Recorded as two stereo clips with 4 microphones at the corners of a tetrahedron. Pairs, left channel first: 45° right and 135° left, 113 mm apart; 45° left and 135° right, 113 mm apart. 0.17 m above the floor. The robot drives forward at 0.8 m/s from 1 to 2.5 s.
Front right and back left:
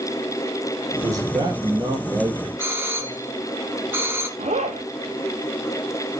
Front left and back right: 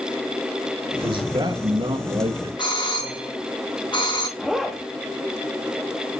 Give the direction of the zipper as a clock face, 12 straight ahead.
8 o'clock.